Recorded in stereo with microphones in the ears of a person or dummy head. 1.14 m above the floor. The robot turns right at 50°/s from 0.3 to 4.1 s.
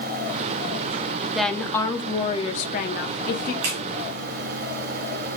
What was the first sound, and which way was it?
A woman speaking, straight ahead.